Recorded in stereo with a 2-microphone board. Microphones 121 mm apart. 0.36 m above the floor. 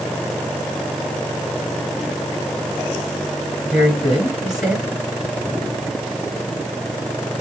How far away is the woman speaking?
About 3 m.